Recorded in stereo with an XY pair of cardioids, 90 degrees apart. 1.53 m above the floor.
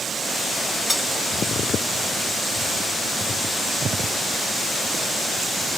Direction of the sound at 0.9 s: 10° left.